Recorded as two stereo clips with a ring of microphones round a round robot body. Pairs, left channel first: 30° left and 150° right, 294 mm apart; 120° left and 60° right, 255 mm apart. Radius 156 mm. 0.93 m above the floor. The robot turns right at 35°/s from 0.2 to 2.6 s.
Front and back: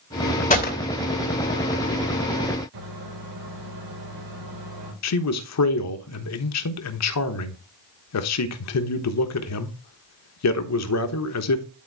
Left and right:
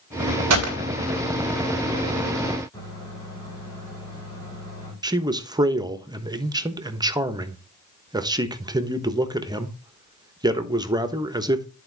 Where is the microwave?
160° right, 3.5 m.